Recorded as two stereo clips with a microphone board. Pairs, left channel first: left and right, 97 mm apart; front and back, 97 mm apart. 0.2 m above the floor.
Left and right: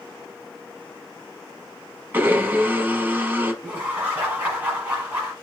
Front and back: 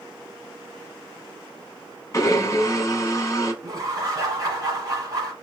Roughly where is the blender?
Ahead right.